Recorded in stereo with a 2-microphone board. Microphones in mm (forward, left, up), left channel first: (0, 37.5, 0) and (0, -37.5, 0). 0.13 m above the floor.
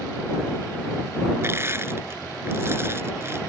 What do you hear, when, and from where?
1.4 s crushing: 35° right (ahead or behind)